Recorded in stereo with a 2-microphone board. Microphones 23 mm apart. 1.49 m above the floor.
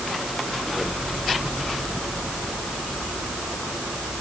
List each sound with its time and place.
Only background noise.